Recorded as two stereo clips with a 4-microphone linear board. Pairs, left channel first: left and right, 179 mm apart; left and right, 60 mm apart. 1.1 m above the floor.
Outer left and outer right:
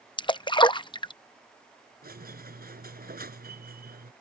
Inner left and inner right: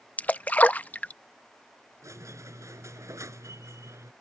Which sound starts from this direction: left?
A splash, at 0.2 s.